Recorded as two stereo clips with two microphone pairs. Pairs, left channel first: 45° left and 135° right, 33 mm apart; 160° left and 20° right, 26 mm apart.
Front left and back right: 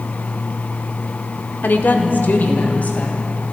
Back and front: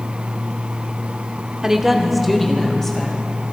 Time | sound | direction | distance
1.6 | a woman speaking | 50° left | 1.4 m